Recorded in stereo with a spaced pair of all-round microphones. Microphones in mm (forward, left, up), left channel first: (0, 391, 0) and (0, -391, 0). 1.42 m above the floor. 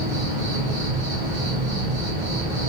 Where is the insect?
70° left (ahead or behind), 3.5 m.